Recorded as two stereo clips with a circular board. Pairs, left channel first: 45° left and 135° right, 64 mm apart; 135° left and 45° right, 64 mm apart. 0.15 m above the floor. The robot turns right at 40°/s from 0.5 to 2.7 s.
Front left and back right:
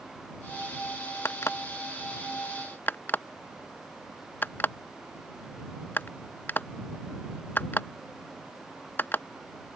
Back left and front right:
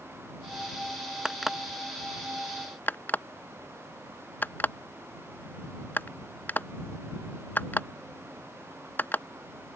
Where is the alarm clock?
30° left; by 9.2 s 90° left.